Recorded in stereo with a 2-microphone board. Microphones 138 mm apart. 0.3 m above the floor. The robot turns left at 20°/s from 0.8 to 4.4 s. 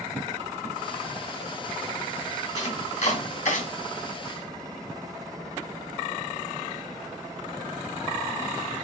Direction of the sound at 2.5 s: 55° left (ahead or behind).